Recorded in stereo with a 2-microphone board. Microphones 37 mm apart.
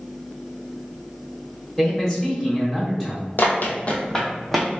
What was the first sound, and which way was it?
A man speaking, 10° left (ahead or behind).